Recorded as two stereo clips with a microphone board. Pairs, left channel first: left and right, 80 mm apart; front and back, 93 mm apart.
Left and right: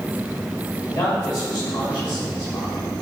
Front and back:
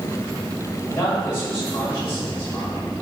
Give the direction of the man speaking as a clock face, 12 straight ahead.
10 o'clock.